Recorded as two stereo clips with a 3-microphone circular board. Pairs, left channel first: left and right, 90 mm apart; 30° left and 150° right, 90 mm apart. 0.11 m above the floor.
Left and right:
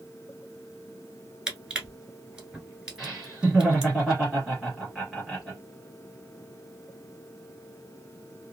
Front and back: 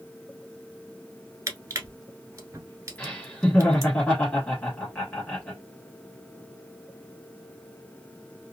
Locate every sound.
1.5 s crushing: 165° right, 1.1 m
3.0 s laughter: 15° right, 1.3 m